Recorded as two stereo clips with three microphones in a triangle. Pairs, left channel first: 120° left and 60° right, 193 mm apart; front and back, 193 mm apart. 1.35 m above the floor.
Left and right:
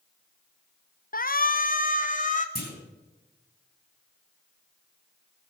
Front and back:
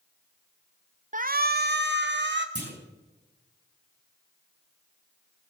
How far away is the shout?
About 0.7 m.